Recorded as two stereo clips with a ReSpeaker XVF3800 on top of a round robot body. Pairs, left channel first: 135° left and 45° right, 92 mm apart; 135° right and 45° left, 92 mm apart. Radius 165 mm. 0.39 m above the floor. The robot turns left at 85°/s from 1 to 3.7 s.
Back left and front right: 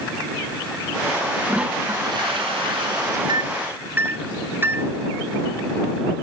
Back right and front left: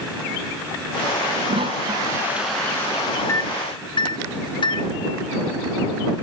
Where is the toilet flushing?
45° left; by 3.2 s 100° right.